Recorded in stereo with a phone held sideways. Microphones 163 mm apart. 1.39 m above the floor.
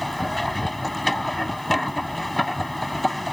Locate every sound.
0.0 s a machine running: centre (ahead or behind)